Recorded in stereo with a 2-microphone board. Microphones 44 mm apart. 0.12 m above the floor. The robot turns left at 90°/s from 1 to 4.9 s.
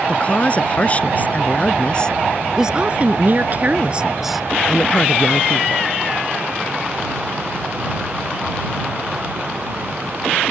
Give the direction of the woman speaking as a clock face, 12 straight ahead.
8 o'clock.